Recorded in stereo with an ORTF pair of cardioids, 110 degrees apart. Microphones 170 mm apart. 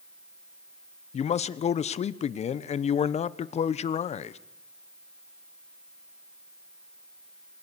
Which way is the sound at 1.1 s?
45° left.